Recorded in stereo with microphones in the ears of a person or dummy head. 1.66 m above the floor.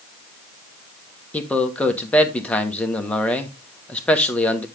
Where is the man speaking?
10° left (ahead or behind), 1.2 m.